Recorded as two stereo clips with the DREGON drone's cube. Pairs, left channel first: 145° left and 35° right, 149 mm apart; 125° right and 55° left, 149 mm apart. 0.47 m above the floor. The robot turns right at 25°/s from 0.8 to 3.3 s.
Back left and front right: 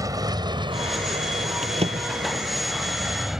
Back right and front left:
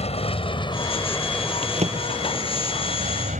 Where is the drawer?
5° left; by 2.4 s 25° left.